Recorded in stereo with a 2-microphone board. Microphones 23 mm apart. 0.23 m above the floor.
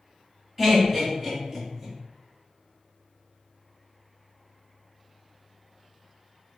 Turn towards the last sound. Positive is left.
turn(degrees=-5)  # may be behind; listen again after turning